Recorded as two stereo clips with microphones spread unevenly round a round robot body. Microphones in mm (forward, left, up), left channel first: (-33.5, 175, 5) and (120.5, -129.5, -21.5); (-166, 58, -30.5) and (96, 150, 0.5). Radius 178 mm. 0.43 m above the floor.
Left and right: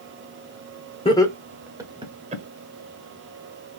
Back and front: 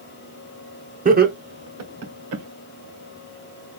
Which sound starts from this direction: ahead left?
Laughter, at 1.1 s.